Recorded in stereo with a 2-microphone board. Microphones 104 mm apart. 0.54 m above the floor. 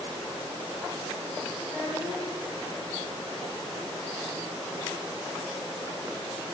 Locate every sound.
1.6 s a child speaking: 15° right (ahead or behind), 4.5 m